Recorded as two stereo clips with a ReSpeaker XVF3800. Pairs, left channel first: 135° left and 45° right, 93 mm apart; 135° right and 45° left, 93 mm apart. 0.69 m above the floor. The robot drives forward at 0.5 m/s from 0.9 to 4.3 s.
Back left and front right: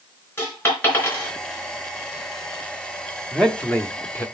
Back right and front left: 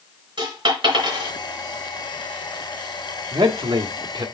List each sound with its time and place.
0.4 s a dropped coin: 65° left, 4 m; by 1.3 s 70° left, 4 m
3.3 s a man speaking: 50° left, 1.2 m; by 4.2 s 75° left, 1.0 m